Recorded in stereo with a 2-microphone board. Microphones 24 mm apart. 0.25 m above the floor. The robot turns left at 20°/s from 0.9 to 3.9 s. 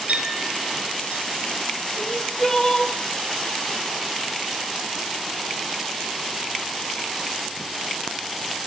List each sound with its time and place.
0.1 s a clink: 80° right, 8 m; by 1.2 s 70° right (ahead or behind), 8 m
2.0 s crying: 10° left (ahead or behind), 4 m; by 2.9 s 25° left (ahead or behind), 4 m